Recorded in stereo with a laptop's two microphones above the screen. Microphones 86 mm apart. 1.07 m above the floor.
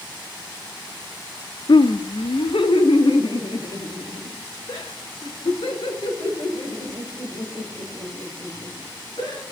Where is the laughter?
65° left (ahead or behind), 0.5 m; by 9.4 s 90° left, 5.5 m.